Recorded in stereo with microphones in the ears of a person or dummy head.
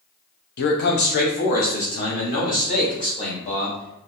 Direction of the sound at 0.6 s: 55° left (ahead or behind).